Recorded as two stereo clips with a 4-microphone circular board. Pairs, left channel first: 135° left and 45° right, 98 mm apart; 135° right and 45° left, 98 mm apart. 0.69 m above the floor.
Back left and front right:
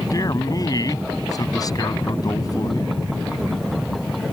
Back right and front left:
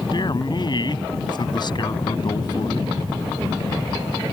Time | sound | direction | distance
0.1 | a man speaking | 175° right | ?